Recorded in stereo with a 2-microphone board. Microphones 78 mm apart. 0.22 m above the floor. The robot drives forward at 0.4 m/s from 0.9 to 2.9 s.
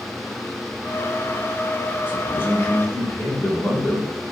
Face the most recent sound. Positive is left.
turn(degrees=25)  # may be behind; listen again after turning